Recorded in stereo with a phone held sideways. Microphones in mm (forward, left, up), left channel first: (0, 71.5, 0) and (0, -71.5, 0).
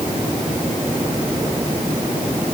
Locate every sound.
Only background noise.